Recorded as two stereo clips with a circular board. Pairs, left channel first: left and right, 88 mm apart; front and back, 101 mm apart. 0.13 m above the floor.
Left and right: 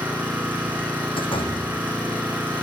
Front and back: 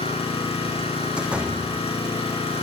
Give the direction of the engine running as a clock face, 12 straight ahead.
1 o'clock.